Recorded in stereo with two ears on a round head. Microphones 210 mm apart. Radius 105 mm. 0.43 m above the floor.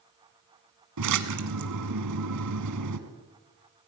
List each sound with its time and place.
1.0 s a splash: 85° right, 1.4 m